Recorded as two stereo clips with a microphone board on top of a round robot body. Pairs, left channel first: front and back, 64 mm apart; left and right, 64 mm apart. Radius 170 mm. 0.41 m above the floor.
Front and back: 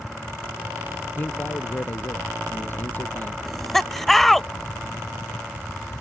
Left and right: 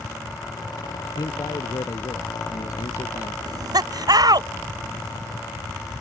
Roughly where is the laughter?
Right.